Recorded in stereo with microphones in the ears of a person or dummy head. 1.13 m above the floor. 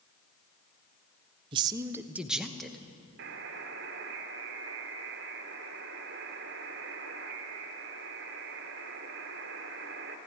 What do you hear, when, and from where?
1.5 s a man speaking: 25° right (ahead or behind), 0.5 m; by 2.8 s 5° left (ahead or behind), 1.2 m
3.2 s a buzzer: 55° right (ahead or behind), 1.2 m